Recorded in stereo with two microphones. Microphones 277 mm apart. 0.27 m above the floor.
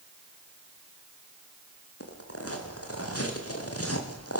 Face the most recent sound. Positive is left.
turn(degrees=60)  # may be behind; listen again after turning